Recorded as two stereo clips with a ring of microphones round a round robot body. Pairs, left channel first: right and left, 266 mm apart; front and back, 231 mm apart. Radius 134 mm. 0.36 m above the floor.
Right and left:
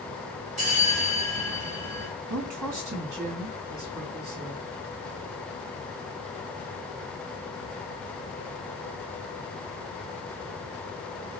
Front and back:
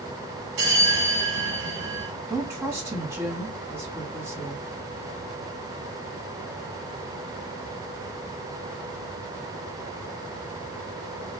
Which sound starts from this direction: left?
A woman speaking, at 2.3 s.